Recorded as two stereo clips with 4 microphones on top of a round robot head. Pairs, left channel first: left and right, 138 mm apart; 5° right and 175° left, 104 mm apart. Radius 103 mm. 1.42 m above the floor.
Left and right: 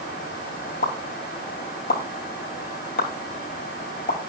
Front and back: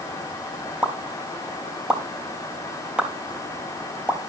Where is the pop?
95° left, 3 m.